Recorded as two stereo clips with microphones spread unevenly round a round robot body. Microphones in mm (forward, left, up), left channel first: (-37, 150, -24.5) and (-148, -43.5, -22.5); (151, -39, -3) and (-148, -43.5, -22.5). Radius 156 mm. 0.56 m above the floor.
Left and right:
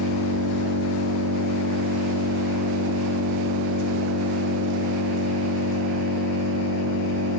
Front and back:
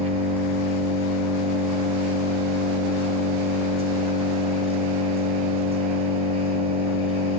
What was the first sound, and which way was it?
An engine running, 110° right.